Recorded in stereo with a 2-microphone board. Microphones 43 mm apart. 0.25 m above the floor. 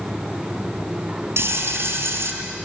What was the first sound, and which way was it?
Frying, 75° right (ahead or behind).